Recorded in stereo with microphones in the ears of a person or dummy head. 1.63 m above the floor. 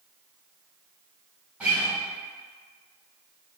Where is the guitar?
5° right (ahead or behind), 1.8 m.